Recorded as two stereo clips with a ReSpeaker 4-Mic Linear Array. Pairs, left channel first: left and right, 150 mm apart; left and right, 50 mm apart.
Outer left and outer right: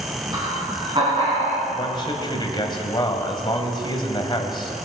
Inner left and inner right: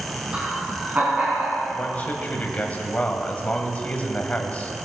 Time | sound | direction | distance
0.3 | laughter | 25° right (ahead or behind) | 3.5 m
1.7 | a man speaking | 30° left (ahead or behind) | 1.8 m